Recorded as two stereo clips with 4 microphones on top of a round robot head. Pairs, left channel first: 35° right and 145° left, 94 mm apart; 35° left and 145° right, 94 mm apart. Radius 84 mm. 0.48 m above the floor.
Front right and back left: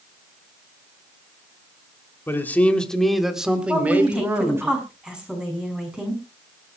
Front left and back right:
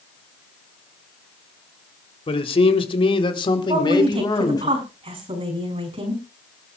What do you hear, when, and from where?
2.3 s a man speaking: 30° left, 2.5 m; by 4.7 s 80° left, 4 m
3.7 s a woman speaking: 135° right, 6 m